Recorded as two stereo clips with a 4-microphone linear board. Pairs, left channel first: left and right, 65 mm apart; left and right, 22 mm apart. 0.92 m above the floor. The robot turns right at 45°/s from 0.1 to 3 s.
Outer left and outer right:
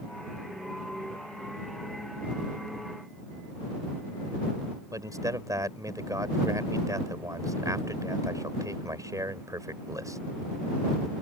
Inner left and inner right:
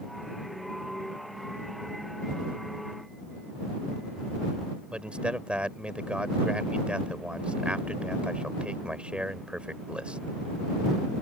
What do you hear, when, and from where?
4.9 s a man speaking: 60° right (ahead or behind)